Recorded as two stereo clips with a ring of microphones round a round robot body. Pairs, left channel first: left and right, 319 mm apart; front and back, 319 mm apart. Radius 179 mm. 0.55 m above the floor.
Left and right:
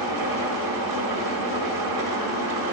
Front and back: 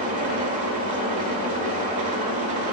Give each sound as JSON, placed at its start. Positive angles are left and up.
{"t": 0.0, "sound": "an engine running", "azimuth_deg": -110, "distance_m": 1.4}